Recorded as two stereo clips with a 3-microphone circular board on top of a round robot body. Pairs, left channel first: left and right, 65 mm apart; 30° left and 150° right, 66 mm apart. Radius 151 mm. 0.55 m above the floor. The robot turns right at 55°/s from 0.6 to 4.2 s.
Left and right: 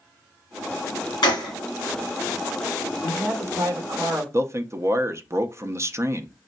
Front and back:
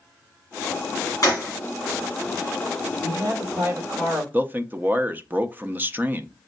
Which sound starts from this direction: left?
A gunshot, at 1.2 s.